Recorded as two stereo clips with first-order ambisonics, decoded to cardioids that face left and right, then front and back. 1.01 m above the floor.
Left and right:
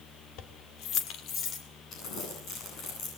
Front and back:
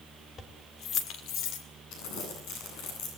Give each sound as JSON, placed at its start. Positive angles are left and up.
{"t": 0.4, "sound": "keys jangling", "azimuth_deg": 65, "distance_m": 2.0}
{"t": 1.9, "sound": "crumpling", "azimuth_deg": 35, "distance_m": 9.5}